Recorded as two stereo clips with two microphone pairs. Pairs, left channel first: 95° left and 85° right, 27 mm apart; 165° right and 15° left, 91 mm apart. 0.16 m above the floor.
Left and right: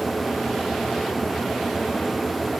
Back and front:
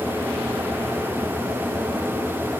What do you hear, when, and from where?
Only background noise.